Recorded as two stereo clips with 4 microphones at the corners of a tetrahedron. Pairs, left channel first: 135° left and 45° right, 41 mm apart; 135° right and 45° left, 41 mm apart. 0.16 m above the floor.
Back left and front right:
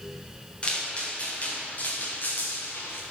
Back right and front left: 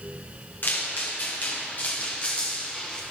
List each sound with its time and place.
0.6 s footsteps: 165° right, 5 m; by 3.0 s 150° left, 3.5 m